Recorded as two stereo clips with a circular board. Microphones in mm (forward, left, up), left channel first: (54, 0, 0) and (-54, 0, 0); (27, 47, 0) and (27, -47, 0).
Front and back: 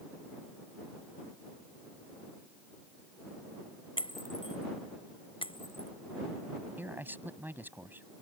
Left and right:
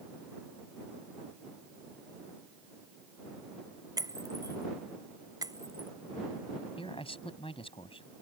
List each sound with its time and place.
4.0 s breaking glass: 40° right
6.8 s a man speaking: 110° left